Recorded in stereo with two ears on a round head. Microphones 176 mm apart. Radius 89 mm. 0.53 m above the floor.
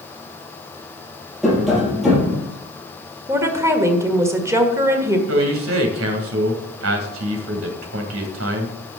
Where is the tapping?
Centre (ahead or behind), 4 m.